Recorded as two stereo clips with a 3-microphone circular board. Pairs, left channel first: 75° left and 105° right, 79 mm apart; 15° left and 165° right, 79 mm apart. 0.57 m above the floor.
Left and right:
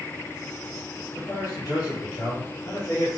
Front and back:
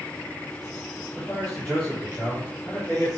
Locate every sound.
1.1 s a man speaking: 90° left, 2.5 m